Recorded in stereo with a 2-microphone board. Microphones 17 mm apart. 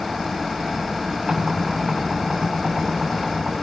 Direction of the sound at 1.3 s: 65° right (ahead or behind).